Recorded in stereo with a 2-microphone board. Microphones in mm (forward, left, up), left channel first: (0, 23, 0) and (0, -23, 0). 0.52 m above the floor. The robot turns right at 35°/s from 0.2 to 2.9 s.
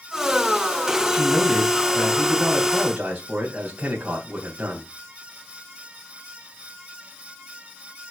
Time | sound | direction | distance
1.1 | a man speaking | 150° left | 3 m